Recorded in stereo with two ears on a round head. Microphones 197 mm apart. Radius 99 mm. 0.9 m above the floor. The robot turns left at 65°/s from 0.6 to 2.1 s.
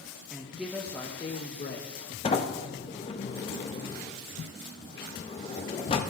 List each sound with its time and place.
0.3 s a woman speaking: 170° right, 0.8 m; by 2.1 s 90° left, 0.8 m
2.2 s a sliding door: 25° left (ahead or behind), 0.7 m